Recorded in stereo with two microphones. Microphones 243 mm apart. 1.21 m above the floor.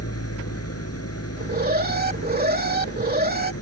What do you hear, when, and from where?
0.0 s an engine running: 80° left
1.4 s an alarm: 40° right (ahead or behind)